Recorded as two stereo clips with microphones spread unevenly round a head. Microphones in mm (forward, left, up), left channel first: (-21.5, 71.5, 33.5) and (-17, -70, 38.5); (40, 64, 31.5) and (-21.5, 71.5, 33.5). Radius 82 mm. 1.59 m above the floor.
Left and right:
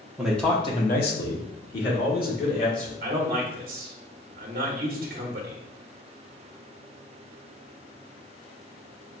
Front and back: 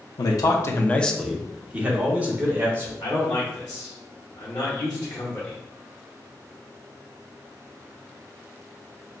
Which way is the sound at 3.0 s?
55° right.